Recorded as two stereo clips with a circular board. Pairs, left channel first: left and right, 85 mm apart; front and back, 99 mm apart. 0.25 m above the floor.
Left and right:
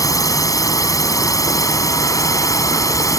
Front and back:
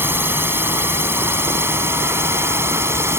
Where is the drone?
120° left; by 3.2 s 125° left.